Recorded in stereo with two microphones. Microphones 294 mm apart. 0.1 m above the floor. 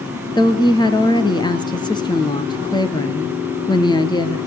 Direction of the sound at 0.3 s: 15° left (ahead or behind).